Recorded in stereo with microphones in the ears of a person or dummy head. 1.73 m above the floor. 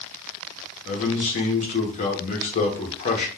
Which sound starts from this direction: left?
A man speaking, at 0.8 s.